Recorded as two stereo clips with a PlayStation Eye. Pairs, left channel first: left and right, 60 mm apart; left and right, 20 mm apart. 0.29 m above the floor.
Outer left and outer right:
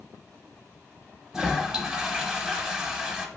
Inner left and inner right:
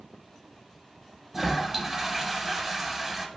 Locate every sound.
1.3 s a toilet flushing: 5° right (ahead or behind), 0.8 m